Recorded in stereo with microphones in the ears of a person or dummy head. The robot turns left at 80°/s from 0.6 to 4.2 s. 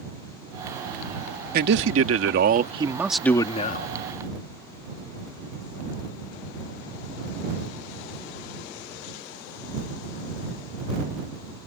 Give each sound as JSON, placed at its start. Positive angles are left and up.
{"t": 1.5, "sound": "a man speaking", "azimuth_deg": -55}